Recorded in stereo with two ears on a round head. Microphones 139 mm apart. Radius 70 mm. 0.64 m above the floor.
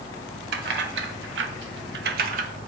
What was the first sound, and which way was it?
Keys jangling, 70° right (ahead or behind).